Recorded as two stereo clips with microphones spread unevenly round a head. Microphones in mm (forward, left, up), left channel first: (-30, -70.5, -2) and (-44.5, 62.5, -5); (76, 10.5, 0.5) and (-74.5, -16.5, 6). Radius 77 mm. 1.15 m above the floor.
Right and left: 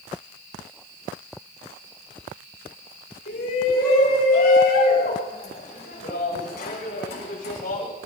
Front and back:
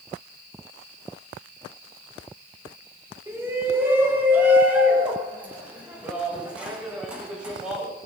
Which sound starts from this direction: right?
A shout, at 3.3 s.